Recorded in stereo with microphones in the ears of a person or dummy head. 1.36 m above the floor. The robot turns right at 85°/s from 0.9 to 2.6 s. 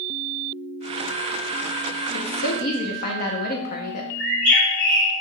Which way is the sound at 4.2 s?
50° right (ahead or behind).